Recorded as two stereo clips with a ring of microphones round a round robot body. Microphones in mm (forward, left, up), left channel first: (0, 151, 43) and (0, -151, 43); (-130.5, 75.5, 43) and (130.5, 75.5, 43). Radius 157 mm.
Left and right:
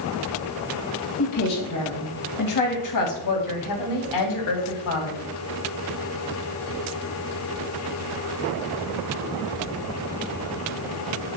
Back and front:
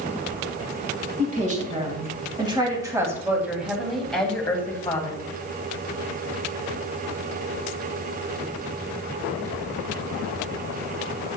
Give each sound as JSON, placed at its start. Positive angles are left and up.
{"t": 1.2, "sound": "a woman speaking", "azimuth_deg": 60, "distance_m": 3.0}